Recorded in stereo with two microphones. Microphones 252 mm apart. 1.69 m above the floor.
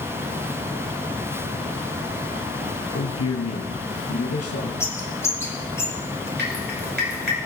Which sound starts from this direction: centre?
A bird, at 4.8 s.